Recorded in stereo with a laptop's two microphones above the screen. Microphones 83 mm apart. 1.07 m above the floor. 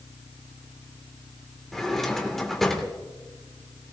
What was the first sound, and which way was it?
A drawer, 5° left (ahead or behind).